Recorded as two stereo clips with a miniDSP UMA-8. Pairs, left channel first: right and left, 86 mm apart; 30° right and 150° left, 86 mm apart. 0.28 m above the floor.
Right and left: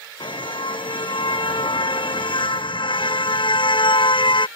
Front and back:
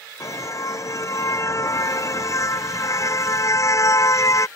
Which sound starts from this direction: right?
A car horn, at 0.2 s.